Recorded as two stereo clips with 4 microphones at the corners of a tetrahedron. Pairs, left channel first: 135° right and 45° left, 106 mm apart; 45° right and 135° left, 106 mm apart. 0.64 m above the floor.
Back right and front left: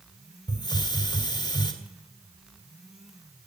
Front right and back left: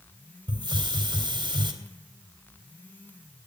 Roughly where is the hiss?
Behind.